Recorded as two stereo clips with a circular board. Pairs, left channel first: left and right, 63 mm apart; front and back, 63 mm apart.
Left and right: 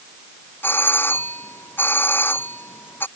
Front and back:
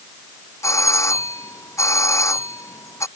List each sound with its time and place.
0.6 s a doorbell: 35° left